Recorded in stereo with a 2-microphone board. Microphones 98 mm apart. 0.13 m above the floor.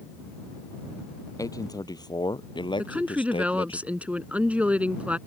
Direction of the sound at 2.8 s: 15° right (ahead or behind).